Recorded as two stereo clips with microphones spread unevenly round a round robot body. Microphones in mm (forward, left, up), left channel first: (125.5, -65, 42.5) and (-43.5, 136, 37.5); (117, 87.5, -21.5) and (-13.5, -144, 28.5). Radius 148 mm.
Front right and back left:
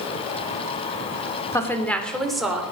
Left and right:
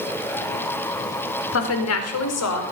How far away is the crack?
No crack in this recording.